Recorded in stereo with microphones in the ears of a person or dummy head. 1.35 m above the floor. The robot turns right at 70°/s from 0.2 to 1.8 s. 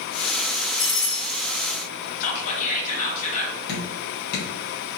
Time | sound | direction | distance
0.8 | a doorbell | straight ahead | 1.1 m
2.2 | whispering | 45° left (ahead or behind) | 0.6 m
3.7 | dripping | 60° left (ahead or behind) | 1.1 m